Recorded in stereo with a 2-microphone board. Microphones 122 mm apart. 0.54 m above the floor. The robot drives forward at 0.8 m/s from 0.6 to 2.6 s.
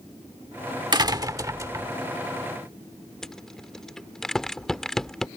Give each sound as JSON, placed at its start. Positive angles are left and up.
{"t": 0.9, "sound": "a door slam", "side_deg": -40}
{"t": 3.2, "sound": "a rattle", "side_deg": 5}